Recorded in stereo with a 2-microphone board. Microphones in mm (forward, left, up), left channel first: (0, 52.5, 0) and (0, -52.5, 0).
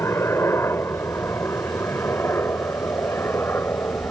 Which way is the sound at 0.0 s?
25° left (ahead or behind).